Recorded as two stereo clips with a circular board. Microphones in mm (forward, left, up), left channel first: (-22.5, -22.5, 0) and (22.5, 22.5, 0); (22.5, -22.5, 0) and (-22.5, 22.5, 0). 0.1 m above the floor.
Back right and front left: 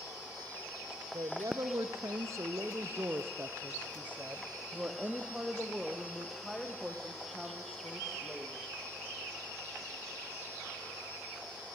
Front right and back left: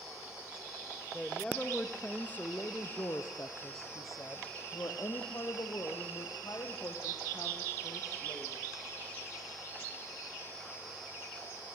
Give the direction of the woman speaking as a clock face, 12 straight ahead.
11 o'clock.